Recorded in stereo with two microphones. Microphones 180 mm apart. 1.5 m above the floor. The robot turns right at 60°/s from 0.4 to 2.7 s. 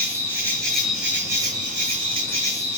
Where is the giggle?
No giggle in this recording.